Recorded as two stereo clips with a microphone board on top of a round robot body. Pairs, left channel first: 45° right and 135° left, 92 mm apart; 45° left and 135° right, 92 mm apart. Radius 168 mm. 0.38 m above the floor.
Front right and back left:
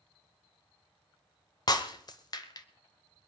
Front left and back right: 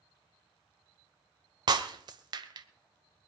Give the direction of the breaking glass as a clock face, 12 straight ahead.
3 o'clock.